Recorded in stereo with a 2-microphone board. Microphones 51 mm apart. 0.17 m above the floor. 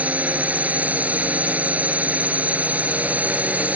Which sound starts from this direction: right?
A drone, at 0.0 s.